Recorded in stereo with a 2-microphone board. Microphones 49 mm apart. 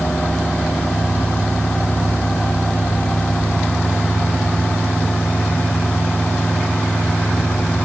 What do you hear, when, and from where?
Only background noise.